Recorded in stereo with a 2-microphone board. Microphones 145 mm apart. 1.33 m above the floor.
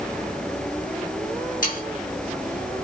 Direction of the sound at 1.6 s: 85° left.